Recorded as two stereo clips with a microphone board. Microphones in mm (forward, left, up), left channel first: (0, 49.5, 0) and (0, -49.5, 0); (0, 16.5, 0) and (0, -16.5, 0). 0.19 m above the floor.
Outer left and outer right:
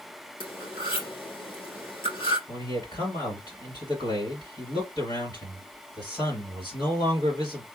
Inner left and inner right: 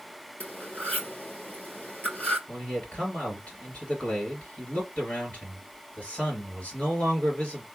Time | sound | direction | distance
0.4 | cutlery clinking | 60° left (ahead or behind) | 3 m
2.5 | a man speaking | 45° left (ahead or behind) | 3.5 m